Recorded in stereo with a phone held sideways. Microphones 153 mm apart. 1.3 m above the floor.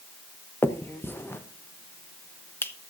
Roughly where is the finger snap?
Centre.